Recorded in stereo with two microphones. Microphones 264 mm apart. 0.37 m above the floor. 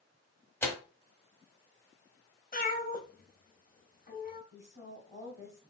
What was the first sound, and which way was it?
Tearing paper, 10° left (ahead or behind).